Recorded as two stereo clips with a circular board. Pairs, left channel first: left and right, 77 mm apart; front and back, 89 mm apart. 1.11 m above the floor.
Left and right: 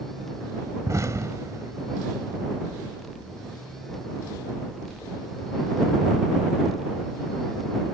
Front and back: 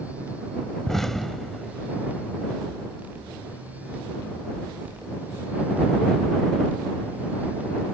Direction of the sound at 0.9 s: 85° right.